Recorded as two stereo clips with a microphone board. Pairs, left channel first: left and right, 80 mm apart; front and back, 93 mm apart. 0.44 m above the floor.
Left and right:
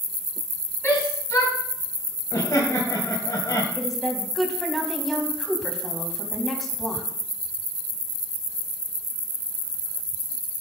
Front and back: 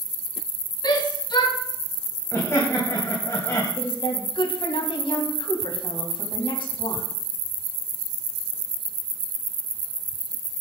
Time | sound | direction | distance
0.8 | a shout | 35° left | 5.5 m
2.3 | laughter | 55° left | 3 m
3.8 | a woman speaking | straight ahead | 3.5 m